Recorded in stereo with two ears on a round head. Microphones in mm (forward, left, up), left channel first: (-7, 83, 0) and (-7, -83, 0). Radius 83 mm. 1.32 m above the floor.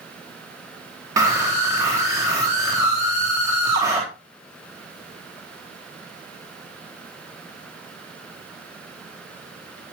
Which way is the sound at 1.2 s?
20° right (ahead or behind).